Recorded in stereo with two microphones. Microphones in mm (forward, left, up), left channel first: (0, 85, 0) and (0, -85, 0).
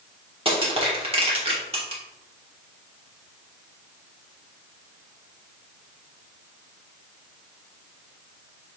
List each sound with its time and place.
0.5 s crushing: 35° right (ahead or behind), 1.4 m